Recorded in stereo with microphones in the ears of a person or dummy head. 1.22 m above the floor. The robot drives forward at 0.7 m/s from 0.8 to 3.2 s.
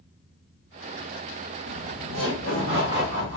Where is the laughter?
85° right, 1.5 m; by 3.4 s 50° right (ahead or behind), 1.9 m.